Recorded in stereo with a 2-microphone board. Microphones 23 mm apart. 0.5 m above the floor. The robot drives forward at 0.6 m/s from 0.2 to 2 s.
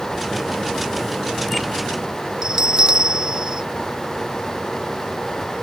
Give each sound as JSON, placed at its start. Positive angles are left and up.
{"t": 2.4, "sound": "a bell", "side_deg": -30}